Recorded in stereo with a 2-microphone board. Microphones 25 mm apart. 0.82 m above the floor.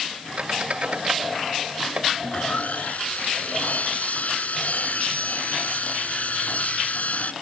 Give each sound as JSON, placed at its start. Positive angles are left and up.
{"t": 0.4, "sound": "a squeak", "side_deg": -50}
{"t": 2.2, "sound": "sawing", "side_deg": 75}